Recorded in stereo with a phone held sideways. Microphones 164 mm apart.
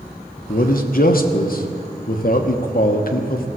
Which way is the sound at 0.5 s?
60° left (ahead or behind).